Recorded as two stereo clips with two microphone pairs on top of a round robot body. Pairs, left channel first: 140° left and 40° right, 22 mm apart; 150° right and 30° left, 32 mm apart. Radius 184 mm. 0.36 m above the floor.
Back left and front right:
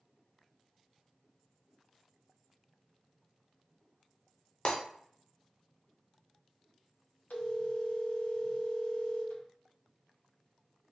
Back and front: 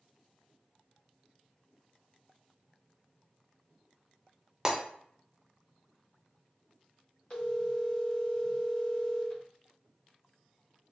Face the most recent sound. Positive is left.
turn(degrees=150)